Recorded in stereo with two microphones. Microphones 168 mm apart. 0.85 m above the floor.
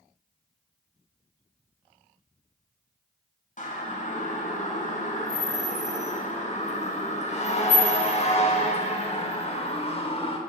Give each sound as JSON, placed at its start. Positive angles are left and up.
{"t": 3.6, "sound": "a siren", "side_deg": 50, "distance_m": 7.5}